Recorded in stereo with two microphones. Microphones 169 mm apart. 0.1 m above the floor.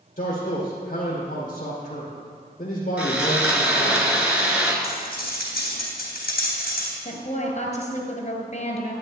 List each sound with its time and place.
0.2 s a man speaking: 45° left (ahead or behind), 2.5 m
3.0 s sawing: 10° right (ahead or behind), 1.5 m
4.8 s cutlery clinking: 60° left (ahead or behind), 2.5 m
7.0 s a woman speaking: 40° left (ahead or behind), 1.7 m